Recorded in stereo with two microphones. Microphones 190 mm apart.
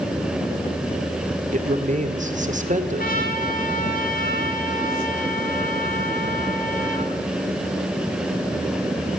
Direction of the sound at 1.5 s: 40° right (ahead or behind).